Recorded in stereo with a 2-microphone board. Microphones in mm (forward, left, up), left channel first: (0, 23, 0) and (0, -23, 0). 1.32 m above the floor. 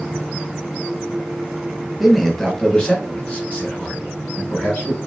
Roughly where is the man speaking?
Centre.